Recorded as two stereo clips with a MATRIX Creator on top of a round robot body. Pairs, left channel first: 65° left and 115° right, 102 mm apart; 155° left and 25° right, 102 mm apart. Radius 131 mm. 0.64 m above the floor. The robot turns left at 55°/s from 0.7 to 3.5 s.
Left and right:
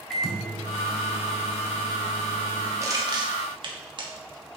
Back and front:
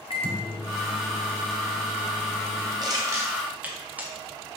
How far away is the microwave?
About 1.5 m.